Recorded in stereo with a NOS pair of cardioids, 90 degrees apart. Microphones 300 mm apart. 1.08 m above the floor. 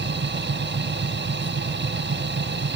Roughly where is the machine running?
Ahead right.